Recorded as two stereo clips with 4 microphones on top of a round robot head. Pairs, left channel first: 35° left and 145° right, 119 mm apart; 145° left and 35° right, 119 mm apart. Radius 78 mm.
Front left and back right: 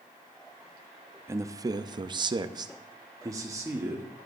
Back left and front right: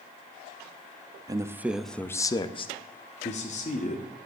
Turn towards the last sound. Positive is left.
turn(degrees=150)